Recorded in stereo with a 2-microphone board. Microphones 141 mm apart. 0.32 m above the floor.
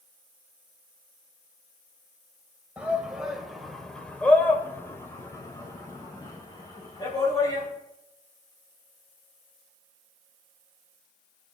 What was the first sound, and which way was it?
A shout, 10° right (ahead or behind).